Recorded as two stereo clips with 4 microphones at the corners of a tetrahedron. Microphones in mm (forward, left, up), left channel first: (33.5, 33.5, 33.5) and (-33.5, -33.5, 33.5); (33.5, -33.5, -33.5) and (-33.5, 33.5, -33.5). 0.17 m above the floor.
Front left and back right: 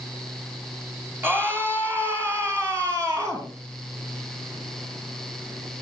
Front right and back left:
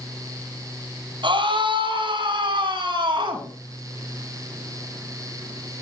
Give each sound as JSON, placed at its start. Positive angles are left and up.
{"t": 1.2, "sound": "a scream", "azimuth_deg": 160, "distance_m": 4.5}